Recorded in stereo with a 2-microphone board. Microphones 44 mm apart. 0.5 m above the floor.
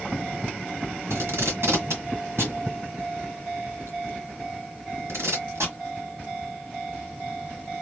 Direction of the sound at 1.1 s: 75° right (ahead or behind).